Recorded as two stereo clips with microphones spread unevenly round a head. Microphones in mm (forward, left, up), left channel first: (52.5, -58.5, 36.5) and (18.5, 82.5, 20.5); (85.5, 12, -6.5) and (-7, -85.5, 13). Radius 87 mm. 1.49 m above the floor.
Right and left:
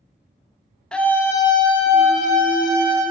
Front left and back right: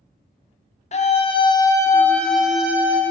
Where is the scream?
10° left, 0.9 m; by 3.0 s 60° right, 1.2 m.